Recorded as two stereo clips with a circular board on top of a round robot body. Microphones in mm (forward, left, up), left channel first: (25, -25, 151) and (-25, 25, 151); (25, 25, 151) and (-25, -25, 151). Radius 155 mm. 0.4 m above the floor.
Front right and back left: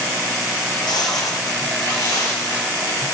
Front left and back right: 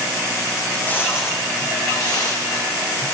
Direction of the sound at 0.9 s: 25° right.